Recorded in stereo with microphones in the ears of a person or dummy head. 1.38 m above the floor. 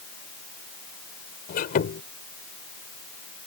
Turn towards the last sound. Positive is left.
turn(degrees=40)  # may be behind; listen again after turning